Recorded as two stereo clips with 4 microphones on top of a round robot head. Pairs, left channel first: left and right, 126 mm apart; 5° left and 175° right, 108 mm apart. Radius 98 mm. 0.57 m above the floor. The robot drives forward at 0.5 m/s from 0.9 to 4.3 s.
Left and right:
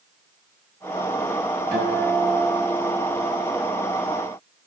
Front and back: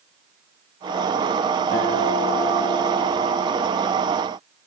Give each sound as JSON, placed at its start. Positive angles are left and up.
{"t": 1.7, "sound": "a guitar", "azimuth_deg": -25, "distance_m": 4.5}